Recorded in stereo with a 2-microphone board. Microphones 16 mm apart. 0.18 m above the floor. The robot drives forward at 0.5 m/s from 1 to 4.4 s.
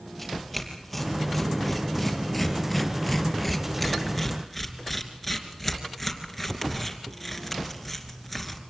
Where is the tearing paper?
Centre (ahead or behind), 4 m; by 8.6 s 5° right (ahead or behind), 2.5 m.